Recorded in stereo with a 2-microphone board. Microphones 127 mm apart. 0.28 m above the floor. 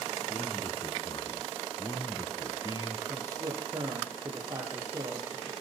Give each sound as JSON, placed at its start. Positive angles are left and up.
{"t": 0.3, "sound": "a man speaking", "side_deg": 35, "distance_m": 3.0}
{"t": 3.1, "sound": "a man speaking", "side_deg": -25, "distance_m": 8.0}